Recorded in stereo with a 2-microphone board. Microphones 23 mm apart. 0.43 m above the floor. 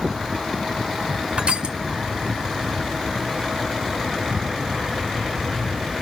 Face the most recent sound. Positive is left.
turn(degrees=-50)  # may be behind; listen again after turning